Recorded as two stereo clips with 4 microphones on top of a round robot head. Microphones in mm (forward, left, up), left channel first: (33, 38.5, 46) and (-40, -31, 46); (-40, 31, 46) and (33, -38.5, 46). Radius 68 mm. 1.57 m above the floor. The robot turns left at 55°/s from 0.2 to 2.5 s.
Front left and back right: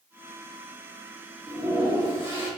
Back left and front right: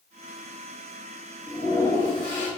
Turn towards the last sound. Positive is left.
turn(degrees=150)